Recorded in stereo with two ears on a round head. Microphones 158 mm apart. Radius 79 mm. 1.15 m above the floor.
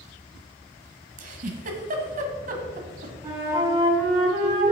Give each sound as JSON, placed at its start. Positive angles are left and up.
{"t": 1.2, "sound": "a giggle", "side_deg": -45, "distance_m": 1.4}
{"t": 3.2, "sound": "a flute", "side_deg": -25, "distance_m": 2.5}